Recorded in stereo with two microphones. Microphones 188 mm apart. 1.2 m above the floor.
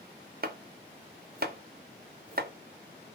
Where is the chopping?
55° right (ahead or behind), 0.8 m.